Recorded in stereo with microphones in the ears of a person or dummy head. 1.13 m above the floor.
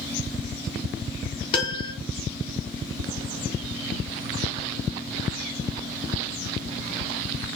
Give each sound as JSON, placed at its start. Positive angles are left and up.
{"t": 1.5, "sound": "a piano", "side_deg": 30, "distance_m": 0.8}